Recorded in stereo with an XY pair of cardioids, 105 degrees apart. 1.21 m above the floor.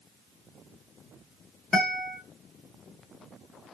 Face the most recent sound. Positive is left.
turn(degrees=30)